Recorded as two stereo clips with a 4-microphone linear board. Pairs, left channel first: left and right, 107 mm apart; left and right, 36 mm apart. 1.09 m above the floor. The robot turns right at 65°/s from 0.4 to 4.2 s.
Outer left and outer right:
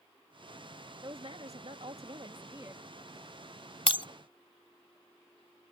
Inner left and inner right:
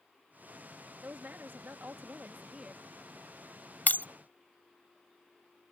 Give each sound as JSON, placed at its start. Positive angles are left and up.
{"t": 1.0, "sound": "a woman speaking", "azimuth_deg": -135}
{"t": 3.9, "sound": "breaking glass", "side_deg": 60}